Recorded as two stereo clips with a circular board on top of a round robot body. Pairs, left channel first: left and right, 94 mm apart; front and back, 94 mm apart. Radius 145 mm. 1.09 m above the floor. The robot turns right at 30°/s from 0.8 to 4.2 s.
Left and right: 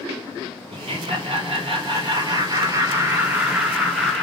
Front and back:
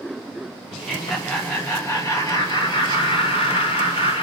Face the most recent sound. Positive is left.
turn(degrees=10)